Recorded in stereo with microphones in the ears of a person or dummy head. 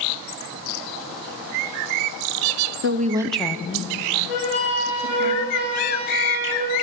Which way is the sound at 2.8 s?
60° right (ahead or behind).